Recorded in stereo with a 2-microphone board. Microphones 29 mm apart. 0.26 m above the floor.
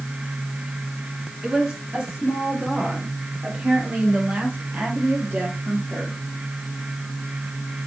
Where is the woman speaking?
30° right (ahead or behind), 4.5 m; by 6.2 s 55° right (ahead or behind), 6 m.